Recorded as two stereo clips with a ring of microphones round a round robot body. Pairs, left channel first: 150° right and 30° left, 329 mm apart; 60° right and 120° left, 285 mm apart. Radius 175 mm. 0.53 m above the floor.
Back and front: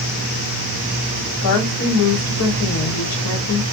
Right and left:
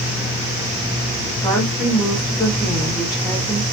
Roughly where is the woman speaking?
Behind right.